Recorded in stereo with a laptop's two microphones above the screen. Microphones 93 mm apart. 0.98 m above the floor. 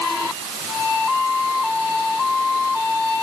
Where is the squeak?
No squeak in this recording.